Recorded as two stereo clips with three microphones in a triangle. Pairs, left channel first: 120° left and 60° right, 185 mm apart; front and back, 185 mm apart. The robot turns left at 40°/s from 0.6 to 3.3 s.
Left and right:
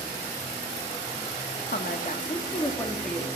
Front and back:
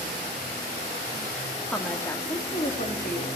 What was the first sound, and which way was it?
A woman speaking, 90° left.